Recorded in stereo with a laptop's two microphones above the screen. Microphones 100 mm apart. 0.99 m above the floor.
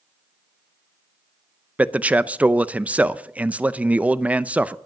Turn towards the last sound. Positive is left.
turn(degrees=-15)  # may be behind; listen again after turning